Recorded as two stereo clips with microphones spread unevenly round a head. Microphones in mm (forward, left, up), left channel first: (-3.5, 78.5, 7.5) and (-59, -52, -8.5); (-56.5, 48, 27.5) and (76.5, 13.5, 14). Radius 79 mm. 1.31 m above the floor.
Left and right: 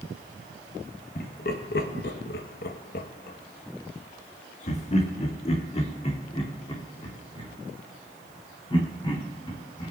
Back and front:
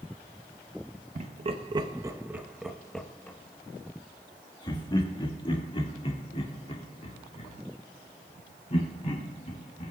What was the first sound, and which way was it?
Laughter, 25° left.